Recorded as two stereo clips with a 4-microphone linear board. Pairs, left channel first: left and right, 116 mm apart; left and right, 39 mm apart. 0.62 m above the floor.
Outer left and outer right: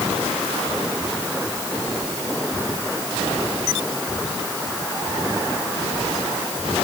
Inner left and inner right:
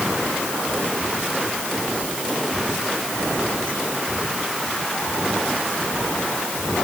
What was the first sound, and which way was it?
Only background noise.